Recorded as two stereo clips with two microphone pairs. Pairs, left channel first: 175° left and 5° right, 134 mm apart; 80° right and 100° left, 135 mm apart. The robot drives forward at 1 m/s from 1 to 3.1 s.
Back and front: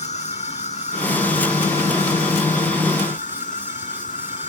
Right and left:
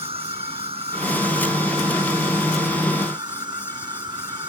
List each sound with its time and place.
0.0 s an insect: 145° left; by 4.5 s 155° left